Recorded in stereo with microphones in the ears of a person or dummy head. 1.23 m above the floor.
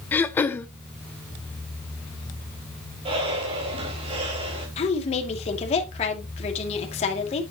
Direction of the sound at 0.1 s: 20° left (ahead or behind).